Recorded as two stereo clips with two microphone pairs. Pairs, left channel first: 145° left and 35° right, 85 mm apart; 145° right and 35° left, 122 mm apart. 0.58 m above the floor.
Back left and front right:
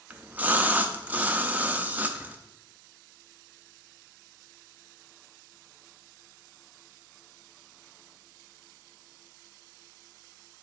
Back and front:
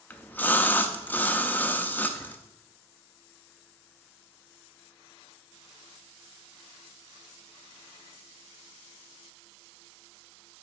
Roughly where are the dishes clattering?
No dishes clattering in this recording.